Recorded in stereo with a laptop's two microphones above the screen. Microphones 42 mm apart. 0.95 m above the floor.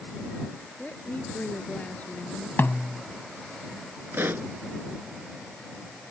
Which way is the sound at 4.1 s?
55° right (ahead or behind).